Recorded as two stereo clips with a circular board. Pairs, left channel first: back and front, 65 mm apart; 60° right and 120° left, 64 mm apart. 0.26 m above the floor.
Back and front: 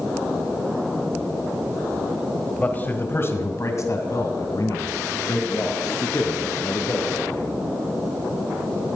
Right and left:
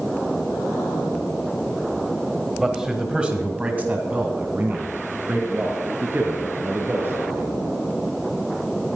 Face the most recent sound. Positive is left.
turn(degrees=170)